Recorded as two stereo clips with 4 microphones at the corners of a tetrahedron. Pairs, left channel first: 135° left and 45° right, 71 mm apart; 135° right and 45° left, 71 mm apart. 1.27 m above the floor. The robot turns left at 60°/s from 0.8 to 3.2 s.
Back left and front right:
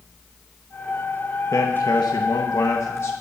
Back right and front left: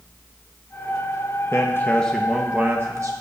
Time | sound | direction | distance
1.5 | a man speaking | straight behind | 1.0 m